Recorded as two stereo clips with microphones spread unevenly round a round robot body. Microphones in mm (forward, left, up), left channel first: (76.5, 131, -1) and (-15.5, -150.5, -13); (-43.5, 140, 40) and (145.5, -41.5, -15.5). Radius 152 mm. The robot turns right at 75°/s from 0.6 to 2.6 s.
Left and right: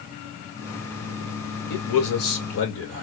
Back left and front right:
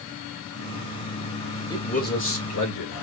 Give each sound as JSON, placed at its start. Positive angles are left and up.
{"t": 1.7, "sound": "a man speaking", "azimuth_deg": 55, "distance_m": 1.9}